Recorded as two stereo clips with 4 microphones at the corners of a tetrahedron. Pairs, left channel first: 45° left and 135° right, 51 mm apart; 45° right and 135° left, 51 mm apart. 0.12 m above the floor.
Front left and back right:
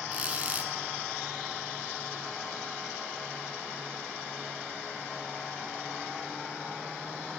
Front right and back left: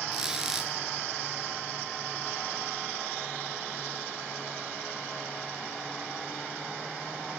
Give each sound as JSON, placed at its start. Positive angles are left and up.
{"t": 0.1, "sound": "a squeak", "azimuth_deg": -155, "distance_m": 0.8}